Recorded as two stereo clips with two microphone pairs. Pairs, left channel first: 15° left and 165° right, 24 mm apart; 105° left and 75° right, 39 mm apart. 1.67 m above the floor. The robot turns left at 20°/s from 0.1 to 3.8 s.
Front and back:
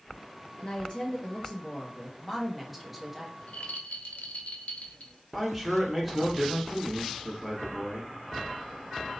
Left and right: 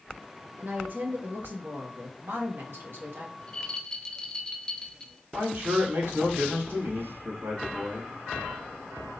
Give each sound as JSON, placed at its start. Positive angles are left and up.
{"t": 0.6, "sound": "a woman speaking", "azimuth_deg": -30, "distance_m": 1.4}
{"t": 3.4, "sound": "a rattle", "azimuth_deg": 45, "distance_m": 0.6}
{"t": 5.3, "sound": "a man speaking", "azimuth_deg": -80, "distance_m": 1.9}